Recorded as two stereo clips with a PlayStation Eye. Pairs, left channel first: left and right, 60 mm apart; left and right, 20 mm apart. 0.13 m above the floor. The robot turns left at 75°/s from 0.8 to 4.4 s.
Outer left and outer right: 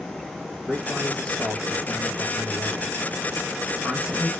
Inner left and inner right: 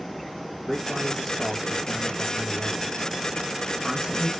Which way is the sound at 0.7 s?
10° right (ahead or behind).